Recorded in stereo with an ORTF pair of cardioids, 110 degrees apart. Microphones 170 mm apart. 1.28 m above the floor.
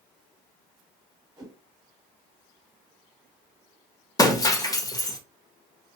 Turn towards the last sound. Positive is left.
turn(degrees=20)